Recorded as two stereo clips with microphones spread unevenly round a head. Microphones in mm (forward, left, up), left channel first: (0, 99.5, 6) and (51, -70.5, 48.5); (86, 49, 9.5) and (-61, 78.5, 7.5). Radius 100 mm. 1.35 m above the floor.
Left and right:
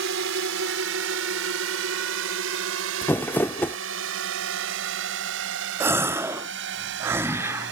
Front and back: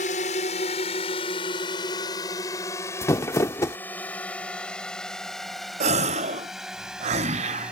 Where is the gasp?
160° right.